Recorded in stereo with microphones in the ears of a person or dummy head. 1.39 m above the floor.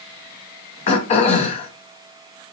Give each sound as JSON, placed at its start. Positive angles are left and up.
{"t": 0.9, "sound": "throat clearing", "side_deg": 40, "distance_m": 0.7}